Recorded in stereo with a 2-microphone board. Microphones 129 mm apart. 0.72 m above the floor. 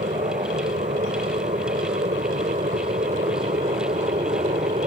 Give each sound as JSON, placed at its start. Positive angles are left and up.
{"t": 0.0, "sound": "an aircraft", "side_deg": -65}